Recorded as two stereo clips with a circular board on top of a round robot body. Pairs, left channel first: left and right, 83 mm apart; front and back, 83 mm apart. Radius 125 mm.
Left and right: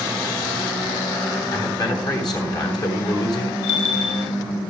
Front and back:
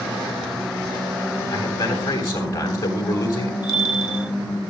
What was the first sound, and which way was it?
A man speaking, 55° left.